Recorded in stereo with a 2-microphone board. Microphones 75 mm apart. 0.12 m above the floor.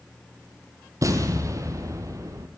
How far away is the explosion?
About 1.1 m.